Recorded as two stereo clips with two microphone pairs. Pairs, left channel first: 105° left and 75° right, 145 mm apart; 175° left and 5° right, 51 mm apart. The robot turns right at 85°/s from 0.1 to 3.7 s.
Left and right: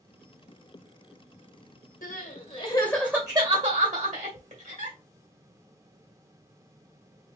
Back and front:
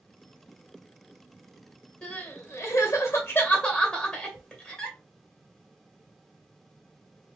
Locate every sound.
2.0 s crying: 110° left, 2.0 m; by 5.0 s 105° right, 2.0 m